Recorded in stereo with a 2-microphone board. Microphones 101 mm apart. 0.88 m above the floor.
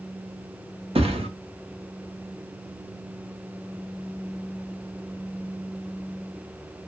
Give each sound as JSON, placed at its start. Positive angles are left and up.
{"t": 0.9, "sound": "a thud", "side_deg": -70, "distance_m": 0.8}